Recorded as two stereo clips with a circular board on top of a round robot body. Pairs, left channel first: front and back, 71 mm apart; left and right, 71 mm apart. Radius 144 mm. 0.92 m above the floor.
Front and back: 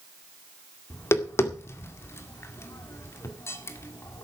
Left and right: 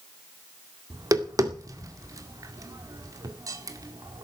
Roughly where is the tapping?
Ahead right.